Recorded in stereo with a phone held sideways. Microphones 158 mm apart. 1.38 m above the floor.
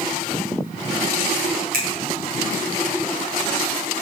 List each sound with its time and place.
1.7 s a finger snap: 70° right (ahead or behind), 0.7 m